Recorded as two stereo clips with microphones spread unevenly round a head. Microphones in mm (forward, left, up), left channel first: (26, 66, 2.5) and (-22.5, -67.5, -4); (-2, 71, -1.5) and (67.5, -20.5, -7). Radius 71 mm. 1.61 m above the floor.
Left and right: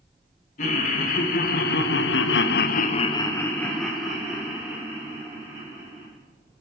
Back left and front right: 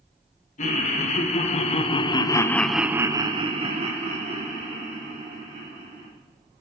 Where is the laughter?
110° left, 2.5 m; by 6.1 s 35° right, 4 m.